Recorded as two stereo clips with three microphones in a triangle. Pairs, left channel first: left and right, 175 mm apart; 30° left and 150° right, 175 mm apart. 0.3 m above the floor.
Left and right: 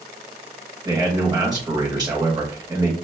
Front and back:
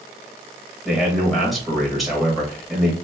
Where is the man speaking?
60° right, 1.1 m.